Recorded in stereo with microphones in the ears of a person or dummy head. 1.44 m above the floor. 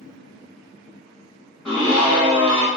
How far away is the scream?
About 1.7 m.